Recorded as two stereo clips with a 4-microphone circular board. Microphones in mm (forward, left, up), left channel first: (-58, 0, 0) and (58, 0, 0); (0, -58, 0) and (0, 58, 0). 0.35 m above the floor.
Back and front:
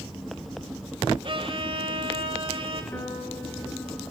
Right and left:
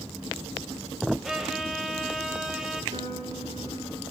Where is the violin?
5° left, 1.6 m.